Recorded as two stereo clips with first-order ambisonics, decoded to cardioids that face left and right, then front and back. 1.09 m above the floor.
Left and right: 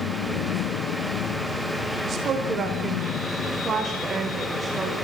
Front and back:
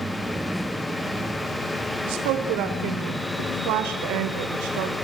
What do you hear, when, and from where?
2.0 s a woman speaking: 155° right, 3.5 m; by 5.0 s 170° right, 5 m